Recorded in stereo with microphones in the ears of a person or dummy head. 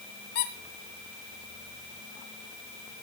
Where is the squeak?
55° left (ahead or behind), 2.5 m.